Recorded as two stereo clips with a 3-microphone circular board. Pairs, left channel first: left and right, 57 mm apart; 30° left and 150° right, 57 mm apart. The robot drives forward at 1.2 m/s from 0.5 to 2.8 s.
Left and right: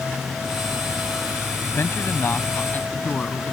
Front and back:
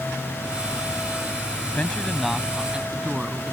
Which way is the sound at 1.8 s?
85° left.